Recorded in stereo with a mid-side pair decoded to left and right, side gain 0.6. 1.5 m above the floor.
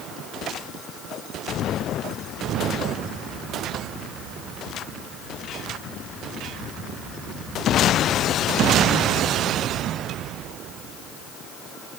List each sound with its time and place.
Only background noise.